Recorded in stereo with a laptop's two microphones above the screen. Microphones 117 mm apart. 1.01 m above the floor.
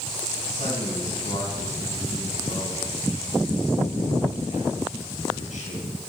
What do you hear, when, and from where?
0.5 s a man speaking: 75° left (ahead or behind), 10 m